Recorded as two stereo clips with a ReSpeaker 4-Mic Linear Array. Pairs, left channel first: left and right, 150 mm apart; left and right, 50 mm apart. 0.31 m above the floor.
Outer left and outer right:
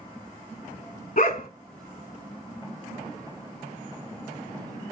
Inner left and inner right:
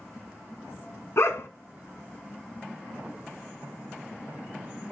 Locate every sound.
1.2 s a dog barking: 65° left (ahead or behind), 1.0 m